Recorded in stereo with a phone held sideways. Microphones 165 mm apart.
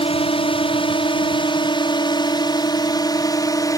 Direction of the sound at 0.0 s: 35° left (ahead or behind).